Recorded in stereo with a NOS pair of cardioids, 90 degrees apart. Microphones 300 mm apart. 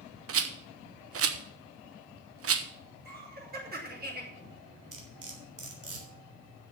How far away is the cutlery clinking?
About 3.5 m.